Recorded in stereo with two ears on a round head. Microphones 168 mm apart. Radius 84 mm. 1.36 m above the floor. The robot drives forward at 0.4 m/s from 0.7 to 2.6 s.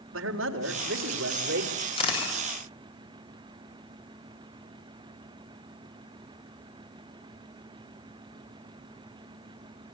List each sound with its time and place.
0.1 s a man speaking: 75° right (ahead or behind), 4 m; by 1.7 s 65° right (ahead or behind), 4 m
2.0 s a camera shutter: 30° left (ahead or behind), 8 m; by 2.3 s 25° left (ahead or behind), 8.5 m